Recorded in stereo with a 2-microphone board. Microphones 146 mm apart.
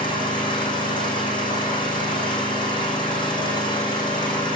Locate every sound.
0.0 s an engine running: 35° left (ahead or behind), 5 m